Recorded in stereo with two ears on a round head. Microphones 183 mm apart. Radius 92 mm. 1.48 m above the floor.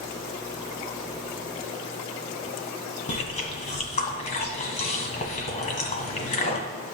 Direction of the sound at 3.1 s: 35° left (ahead or behind).